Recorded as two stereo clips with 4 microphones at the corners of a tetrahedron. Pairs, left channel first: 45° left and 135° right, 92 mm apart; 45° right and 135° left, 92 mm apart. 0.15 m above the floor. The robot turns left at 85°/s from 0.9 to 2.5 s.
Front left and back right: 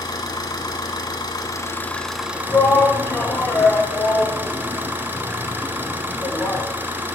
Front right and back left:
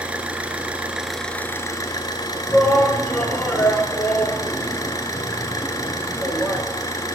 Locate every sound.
0.0 s an engine running: 65° left, 1.0 m; by 7.2 s 75° right, 1.0 m
2.5 s a shout: 25° left, 1.4 m